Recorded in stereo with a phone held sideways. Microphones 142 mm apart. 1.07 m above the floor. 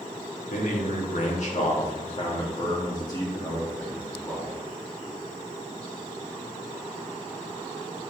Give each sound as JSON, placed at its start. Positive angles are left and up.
{"t": 0.5, "sound": "a man speaking", "side_deg": 70, "distance_m": 2.0}